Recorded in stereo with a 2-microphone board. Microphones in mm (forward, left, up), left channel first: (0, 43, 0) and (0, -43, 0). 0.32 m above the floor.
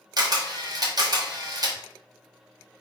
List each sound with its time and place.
0.2 s a camera shutter: 50° right (ahead or behind), 1.3 m